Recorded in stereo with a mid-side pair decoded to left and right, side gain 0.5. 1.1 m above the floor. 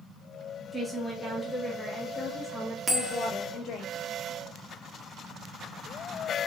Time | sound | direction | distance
0.7 | a woman speaking | straight ahead | 2.5 m
2.9 | a bell | 10° right | 1.7 m